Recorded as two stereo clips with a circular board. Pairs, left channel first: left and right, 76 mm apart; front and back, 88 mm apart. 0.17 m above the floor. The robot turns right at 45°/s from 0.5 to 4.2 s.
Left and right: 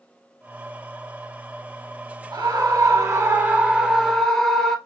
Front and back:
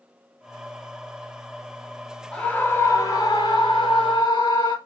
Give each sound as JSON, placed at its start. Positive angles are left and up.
{"t": 2.3, "sound": "a scream", "azimuth_deg": -80, "distance_m": 2.5}